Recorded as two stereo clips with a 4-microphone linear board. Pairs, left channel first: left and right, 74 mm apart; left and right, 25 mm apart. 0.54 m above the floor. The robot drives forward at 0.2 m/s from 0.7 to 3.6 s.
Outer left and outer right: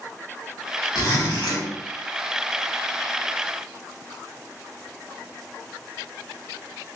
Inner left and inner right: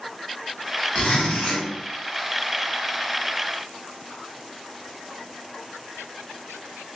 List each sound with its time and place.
0.9 s a zipper: 65° left (ahead or behind), 1.0 m